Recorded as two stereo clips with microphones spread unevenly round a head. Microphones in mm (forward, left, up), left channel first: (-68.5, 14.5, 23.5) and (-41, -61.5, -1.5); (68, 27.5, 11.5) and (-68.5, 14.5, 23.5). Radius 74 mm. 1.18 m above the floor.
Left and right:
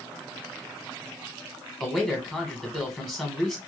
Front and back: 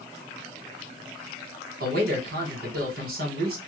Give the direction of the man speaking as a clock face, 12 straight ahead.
5 o'clock.